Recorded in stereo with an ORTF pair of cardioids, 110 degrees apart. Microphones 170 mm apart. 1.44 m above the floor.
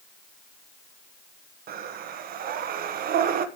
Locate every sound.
1.7 s breathing: 60° right, 1.3 m